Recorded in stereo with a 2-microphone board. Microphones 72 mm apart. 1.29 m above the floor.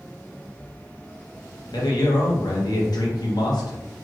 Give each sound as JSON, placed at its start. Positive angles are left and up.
{"t": 1.7, "sound": "a man speaking", "side_deg": 70, "distance_m": 0.8}